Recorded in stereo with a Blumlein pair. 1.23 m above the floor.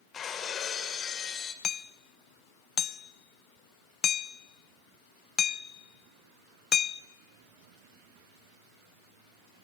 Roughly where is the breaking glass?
Ahead left.